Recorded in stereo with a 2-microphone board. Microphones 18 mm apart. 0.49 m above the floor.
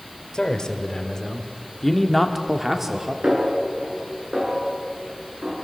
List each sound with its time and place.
0.3 s a man speaking: 50° left (ahead or behind), 2 m; by 3.1 s 30° right (ahead or behind), 1.5 m
3.2 s a snare drum: 65° right (ahead or behind), 6 m